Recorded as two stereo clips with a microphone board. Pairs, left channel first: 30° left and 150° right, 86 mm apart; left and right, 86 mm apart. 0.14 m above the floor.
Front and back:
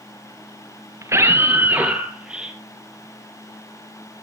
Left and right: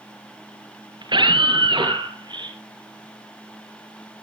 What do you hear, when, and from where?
1.0 s a scream: 100° right, 3 m; by 2.6 s 70° right, 4.5 m